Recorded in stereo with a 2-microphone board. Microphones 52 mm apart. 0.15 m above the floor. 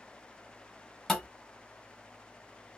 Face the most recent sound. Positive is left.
turn(degrees=0)  # may be behind; listen again after turning